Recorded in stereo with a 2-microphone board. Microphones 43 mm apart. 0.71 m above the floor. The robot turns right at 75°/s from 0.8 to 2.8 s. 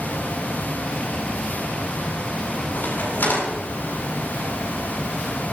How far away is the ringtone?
No ringtone in this recording.